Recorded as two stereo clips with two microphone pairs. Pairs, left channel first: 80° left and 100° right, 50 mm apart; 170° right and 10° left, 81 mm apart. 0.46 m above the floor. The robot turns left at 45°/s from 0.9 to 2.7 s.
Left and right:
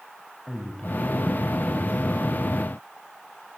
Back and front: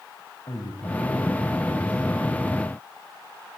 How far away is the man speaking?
About 3.5 m.